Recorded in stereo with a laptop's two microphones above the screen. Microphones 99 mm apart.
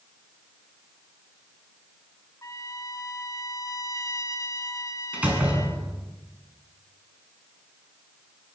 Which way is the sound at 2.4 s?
35° left (ahead or behind).